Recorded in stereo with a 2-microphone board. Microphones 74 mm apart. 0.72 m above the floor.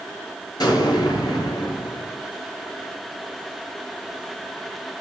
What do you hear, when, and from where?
0.6 s an explosion: 60° left (ahead or behind), 6.5 m